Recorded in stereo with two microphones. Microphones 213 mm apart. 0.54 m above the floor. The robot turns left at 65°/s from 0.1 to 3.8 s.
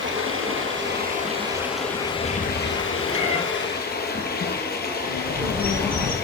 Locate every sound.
0.0 s running water: 70° right, 1.5 m; by 6.2 s 50° left, 1.5 m
3.1 s a cat meowing: 25° left (ahead or behind), 2.5 m; by 3.4 s 45° left (ahead or behind), 2.5 m
5.0 s a bird: 5° left (ahead or behind), 2 m